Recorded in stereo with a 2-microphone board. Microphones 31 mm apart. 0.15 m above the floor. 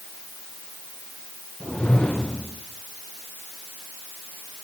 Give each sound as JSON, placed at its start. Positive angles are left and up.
{"t": 1.6, "sound": "a whoosh", "side_deg": 30, "distance_m": 7.5}